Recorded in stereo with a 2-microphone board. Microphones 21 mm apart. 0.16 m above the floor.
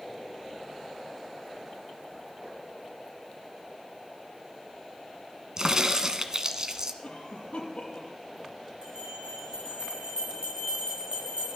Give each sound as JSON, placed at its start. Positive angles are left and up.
{"t": 5.6, "sound": "a crack", "side_deg": -35, "distance_m": 1.4}
{"t": 7.0, "sound": "a cough", "side_deg": 60, "distance_m": 5.5}
{"t": 8.8, "sound": "a bell", "side_deg": -50, "distance_m": 8.0}